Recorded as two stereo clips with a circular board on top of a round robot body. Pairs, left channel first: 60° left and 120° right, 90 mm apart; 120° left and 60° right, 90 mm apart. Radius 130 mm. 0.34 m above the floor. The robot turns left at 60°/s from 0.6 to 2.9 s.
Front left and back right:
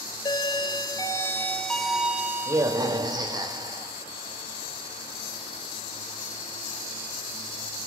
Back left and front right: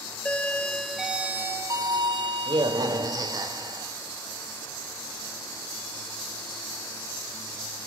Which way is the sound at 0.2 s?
45° left.